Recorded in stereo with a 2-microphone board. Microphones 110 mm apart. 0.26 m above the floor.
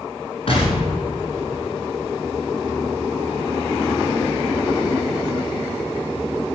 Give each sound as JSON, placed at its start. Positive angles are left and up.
{"t": 0.5, "sound": "an explosion", "side_deg": 55, "distance_m": 4.0}